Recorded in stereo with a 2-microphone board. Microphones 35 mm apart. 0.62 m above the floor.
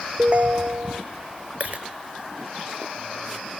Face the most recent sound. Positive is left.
turn(degrees=-45)  # may be behind; listen again after turning